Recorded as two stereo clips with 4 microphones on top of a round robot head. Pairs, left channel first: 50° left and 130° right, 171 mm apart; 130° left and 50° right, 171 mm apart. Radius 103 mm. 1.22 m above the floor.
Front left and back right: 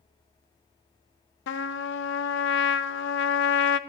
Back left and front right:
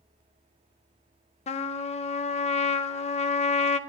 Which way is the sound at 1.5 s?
75° left.